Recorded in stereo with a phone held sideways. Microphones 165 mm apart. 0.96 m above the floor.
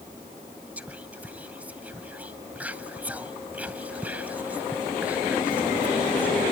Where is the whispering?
10° right (ahead or behind), 0.6 m.